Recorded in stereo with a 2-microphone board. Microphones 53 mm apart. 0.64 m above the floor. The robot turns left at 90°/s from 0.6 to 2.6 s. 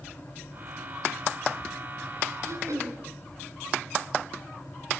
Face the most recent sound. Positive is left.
turn(degrees=-75)  # may be behind; listen again after turning